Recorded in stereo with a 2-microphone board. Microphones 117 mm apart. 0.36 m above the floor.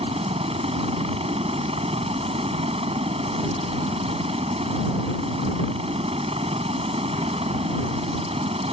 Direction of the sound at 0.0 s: 65° right (ahead or behind).